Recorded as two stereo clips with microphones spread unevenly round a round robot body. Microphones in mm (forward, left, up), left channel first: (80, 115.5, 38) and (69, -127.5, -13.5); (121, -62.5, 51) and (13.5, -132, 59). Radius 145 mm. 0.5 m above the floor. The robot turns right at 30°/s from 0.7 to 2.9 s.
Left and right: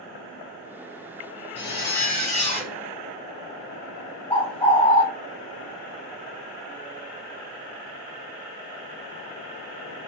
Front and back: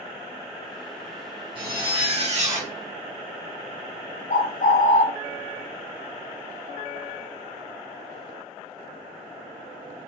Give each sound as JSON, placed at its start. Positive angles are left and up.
{"t": 1.6, "sound": "a zipper", "azimuth_deg": 160, "distance_m": 1.0}
{"t": 4.3, "sound": "a bird", "azimuth_deg": 20, "distance_m": 1.0}